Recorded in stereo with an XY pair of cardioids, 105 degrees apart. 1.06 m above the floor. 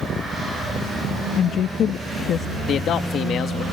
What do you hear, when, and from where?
1.4 s a woman speaking: 70° left
2.7 s a man speaking: 70° left